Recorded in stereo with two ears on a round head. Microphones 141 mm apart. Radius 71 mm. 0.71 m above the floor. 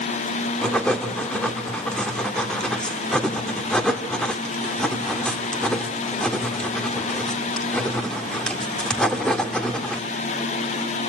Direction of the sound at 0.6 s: 5° left (ahead or behind).